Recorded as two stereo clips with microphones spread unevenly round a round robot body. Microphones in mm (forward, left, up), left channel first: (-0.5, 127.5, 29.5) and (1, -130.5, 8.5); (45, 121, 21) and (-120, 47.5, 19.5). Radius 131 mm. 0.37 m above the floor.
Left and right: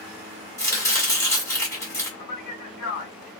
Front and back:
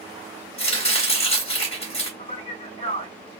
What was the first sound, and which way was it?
Chopping, 10° left.